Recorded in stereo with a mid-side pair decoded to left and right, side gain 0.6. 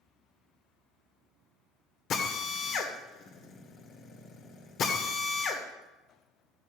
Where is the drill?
55° left, 2 m.